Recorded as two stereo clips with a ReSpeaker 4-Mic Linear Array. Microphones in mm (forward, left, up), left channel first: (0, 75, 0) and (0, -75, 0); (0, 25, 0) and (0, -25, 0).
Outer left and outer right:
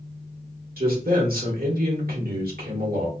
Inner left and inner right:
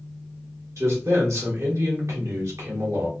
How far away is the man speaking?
About 1.3 m.